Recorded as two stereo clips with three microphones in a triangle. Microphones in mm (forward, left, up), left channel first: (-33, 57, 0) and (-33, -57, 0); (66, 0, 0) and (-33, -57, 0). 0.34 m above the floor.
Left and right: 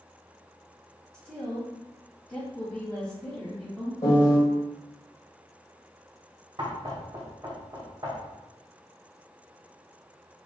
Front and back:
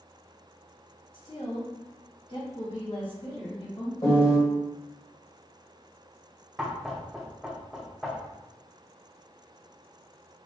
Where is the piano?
60° left, 1.4 m.